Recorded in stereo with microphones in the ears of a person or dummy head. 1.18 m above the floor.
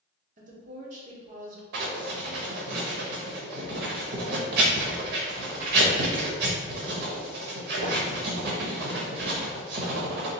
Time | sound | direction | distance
0.4 | a woman speaking | 40° right (ahead or behind) | 0.7 m
1.7 | writing | 60° right (ahead or behind) | 0.7 m